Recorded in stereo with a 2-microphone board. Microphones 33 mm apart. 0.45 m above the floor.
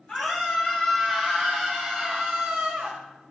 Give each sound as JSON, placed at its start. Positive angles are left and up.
{"t": 0.1, "sound": "a scream", "side_deg": 25, "distance_m": 3.0}